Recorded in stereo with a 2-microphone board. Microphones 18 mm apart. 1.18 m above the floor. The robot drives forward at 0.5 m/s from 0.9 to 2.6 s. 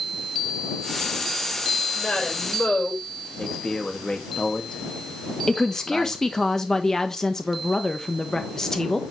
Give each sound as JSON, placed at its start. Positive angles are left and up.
{"t": 1.9, "sound": "a woman speaking", "side_deg": 75, "distance_m": 5.0}
{"t": 3.4, "sound": "a man speaking", "side_deg": 40, "distance_m": 2.0}
{"t": 5.5, "sound": "a woman speaking", "side_deg": 25, "distance_m": 1.2}